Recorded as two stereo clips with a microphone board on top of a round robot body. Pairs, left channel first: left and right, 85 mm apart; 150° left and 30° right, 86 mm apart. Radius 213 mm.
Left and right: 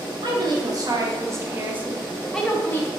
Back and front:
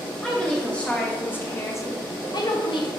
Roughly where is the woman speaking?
Behind right.